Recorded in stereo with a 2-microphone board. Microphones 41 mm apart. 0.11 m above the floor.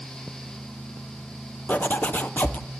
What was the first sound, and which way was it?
A zipper, 45° left (ahead or behind).